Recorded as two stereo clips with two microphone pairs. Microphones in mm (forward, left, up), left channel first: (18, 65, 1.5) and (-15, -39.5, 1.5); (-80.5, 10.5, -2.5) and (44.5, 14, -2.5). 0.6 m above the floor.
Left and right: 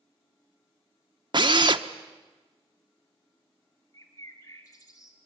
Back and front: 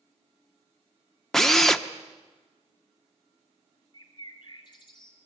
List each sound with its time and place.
1.3 s a drill: 95° right, 1.0 m
3.9 s a bird: 130° left, 3 m